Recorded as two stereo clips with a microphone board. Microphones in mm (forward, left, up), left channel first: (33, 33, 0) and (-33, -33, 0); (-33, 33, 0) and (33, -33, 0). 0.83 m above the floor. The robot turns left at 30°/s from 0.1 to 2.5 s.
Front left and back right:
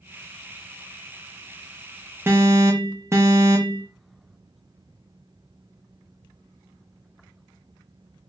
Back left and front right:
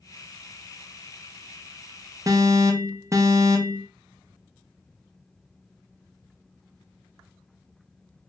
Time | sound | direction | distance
2.3 | an alarm | 80° right | 0.6 m